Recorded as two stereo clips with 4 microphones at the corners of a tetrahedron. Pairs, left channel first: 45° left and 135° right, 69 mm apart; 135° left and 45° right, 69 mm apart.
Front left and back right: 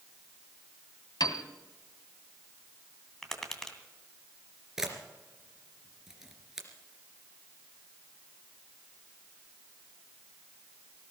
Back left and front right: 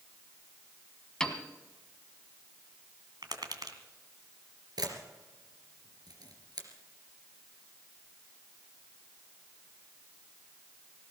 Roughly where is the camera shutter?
Ahead right.